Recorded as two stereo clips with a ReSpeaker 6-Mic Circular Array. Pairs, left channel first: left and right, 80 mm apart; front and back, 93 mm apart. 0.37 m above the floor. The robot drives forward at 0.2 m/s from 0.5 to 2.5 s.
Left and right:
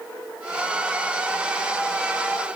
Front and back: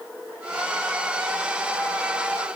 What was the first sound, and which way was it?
Only background noise.